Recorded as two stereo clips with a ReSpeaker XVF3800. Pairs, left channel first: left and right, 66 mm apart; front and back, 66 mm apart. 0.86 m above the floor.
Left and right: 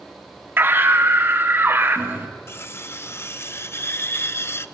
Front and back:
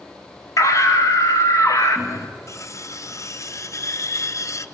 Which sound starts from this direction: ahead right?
A scream, at 0.6 s.